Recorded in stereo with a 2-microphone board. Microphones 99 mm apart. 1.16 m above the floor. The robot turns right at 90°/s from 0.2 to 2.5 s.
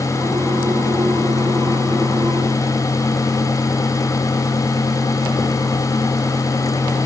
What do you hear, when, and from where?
Only background noise.